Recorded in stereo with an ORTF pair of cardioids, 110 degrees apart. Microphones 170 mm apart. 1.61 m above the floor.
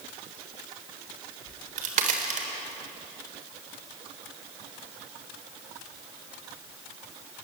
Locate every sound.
1.5 s a crack: 50° right, 4 m